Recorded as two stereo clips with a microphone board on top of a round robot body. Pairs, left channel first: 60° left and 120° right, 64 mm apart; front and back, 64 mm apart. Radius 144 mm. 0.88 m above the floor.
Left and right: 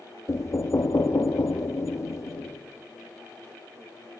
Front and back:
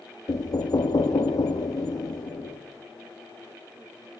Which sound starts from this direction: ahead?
Knocking, at 0.3 s.